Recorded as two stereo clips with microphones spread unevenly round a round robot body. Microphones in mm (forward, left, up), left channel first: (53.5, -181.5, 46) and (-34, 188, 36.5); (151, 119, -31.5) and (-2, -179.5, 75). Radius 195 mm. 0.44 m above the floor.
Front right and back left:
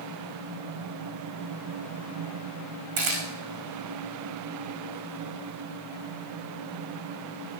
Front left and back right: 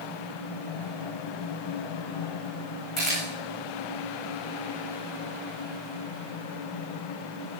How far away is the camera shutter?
About 9.5 m.